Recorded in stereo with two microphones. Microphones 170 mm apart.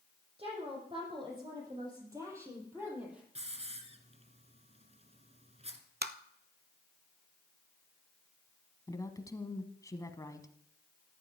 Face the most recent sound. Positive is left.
turn(degrees=20)  # may be behind; listen again after turning